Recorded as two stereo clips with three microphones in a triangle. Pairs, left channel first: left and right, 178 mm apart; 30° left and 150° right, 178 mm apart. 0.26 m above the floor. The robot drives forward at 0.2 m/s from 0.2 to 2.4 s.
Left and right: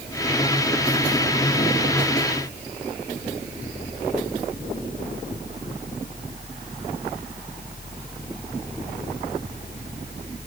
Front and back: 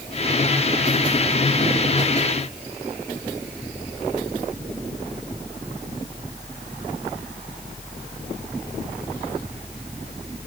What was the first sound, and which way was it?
Only background noise.